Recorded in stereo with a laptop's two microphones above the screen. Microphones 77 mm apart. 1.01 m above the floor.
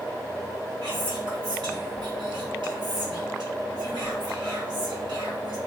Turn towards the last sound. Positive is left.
turn(degrees=-70)  # may be behind; listen again after turning